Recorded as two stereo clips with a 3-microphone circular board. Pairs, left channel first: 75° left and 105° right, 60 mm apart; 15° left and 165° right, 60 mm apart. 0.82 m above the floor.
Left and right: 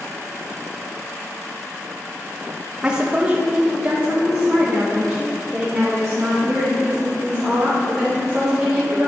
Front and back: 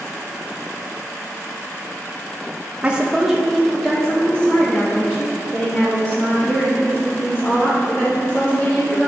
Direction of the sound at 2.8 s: 155° right.